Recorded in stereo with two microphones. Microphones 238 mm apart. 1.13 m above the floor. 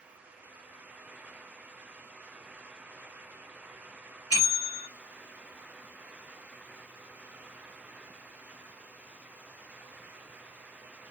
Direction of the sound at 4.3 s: 70° left (ahead or behind).